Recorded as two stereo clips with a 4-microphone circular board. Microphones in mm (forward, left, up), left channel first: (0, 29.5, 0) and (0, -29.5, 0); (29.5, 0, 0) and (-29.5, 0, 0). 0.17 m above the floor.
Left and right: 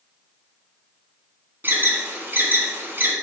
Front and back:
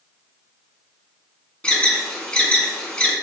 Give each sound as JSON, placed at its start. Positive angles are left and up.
{"t": 1.6, "sound": "an alarm", "azimuth_deg": -65, "distance_m": 1.4}